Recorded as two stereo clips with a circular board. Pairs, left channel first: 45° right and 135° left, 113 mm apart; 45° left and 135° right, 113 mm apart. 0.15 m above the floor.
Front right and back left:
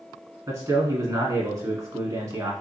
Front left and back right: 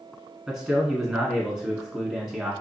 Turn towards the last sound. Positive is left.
turn(degrees=145)